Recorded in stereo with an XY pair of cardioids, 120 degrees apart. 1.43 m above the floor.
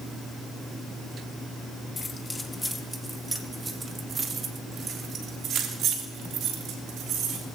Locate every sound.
2.0 s keys jangling: 25° left, 1.9 m; by 7.5 s 70° right, 4.5 m